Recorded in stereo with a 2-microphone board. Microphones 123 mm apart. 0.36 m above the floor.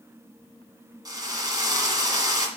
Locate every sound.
1.1 s a drill: 30° right (ahead or behind), 1.9 m